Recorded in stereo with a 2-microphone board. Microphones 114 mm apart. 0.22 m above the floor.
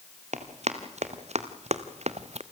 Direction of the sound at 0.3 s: 80° right.